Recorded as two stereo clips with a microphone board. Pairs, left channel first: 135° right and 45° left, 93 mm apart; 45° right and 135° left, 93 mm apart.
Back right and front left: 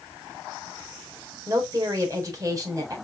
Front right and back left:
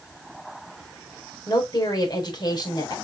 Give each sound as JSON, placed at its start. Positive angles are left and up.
{"t": 1.5, "sound": "a woman speaking", "azimuth_deg": -5, "distance_m": 4.0}